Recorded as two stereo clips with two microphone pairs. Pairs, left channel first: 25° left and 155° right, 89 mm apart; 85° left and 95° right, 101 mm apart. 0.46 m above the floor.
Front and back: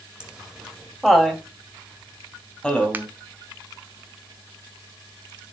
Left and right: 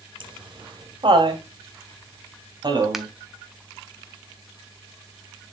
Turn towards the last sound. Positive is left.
turn(degrees=180)